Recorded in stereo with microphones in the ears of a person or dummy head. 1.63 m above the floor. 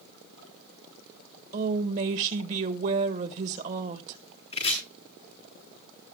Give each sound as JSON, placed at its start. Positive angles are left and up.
{"t": 1.5, "sound": "a woman speaking", "side_deg": -35, "distance_m": 1.5}
{"t": 4.5, "sound": "chopping", "side_deg": 30, "distance_m": 7.0}